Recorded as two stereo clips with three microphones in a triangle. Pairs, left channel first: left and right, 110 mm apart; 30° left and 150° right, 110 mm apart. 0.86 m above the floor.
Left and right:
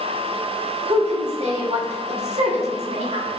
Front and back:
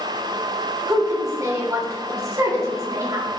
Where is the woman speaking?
90° right, 2.5 m.